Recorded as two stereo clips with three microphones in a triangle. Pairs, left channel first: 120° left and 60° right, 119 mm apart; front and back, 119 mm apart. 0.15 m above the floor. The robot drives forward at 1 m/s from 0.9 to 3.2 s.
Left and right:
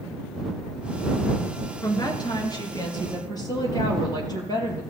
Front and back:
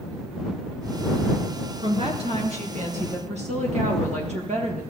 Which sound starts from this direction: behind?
A woman speaking, at 1.8 s.